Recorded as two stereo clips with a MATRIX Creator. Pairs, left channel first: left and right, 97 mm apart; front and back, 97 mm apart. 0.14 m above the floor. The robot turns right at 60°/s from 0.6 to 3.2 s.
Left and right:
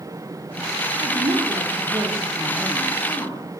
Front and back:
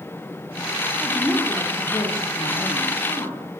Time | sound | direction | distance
1.0 | a woman speaking | 95° right | 9 m